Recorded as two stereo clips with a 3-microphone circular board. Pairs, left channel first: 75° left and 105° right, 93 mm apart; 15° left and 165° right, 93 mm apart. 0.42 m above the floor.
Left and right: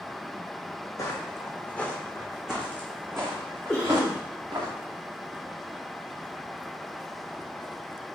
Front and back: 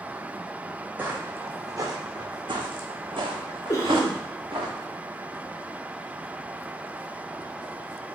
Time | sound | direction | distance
1.0 | footsteps | 125° left | 1.1 m
3.7 | a cough | straight ahead | 1.0 m